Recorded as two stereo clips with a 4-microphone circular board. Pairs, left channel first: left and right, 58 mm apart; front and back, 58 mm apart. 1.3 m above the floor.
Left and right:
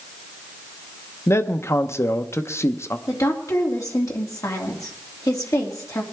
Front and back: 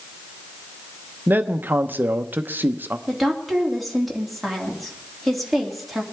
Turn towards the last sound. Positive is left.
turn(degrees=90)